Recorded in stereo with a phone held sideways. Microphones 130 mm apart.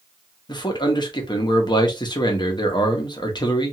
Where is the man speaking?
35° left (ahead or behind), 0.7 m.